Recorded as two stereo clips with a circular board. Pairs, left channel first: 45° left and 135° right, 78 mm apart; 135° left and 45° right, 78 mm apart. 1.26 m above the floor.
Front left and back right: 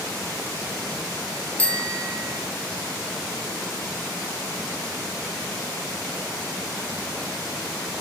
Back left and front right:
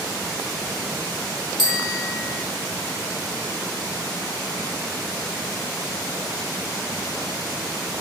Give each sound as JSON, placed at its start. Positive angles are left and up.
{"t": 1.6, "sound": "a bicycle bell", "azimuth_deg": -25, "distance_m": 2.0}